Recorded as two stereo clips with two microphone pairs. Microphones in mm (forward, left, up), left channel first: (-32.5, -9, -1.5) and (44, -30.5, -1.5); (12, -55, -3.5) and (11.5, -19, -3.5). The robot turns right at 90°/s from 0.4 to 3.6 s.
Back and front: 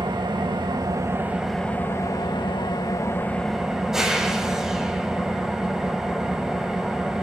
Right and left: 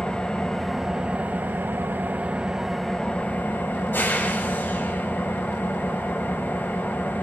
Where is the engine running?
25° right, 1.8 m; by 7.2 s 100° right, 1.8 m.